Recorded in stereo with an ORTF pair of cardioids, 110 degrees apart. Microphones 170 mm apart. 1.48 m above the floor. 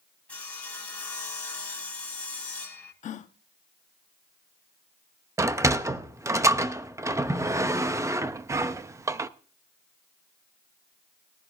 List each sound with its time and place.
0.3 s sawing: 5° left, 3.5 m
3.0 s a gasp: 50° left, 0.9 m
5.4 s a sliding door: 20° right, 0.7 m